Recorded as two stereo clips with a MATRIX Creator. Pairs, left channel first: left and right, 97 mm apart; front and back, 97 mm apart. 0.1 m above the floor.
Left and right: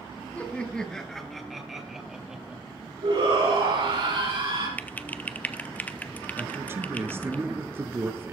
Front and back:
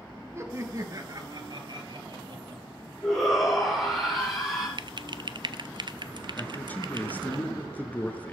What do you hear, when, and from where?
0.3 s laughter: 150° left, 1.3 m; by 2.6 s 170° right, 2.5 m
3.0 s a shout: 90° right, 5.5 m
4.8 s typing on a keyboard: 160° left, 0.6 m
6.4 s a man speaking: 55° right, 1.3 m